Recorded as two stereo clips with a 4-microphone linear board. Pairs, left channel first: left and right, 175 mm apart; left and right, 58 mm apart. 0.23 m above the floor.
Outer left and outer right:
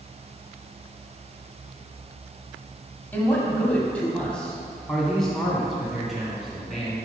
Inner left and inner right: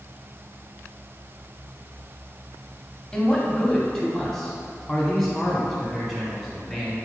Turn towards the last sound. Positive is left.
turn(degrees=0)  # may be behind; listen again after turning